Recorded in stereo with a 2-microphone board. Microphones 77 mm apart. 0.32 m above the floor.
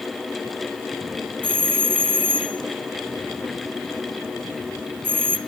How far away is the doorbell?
About 1.9 m.